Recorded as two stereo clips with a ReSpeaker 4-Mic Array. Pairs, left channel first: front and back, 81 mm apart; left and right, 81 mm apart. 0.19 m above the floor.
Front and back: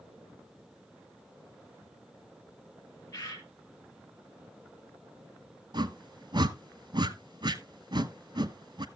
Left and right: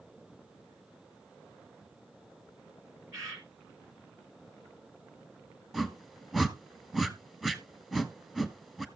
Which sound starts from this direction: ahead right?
A bird, at 3.1 s.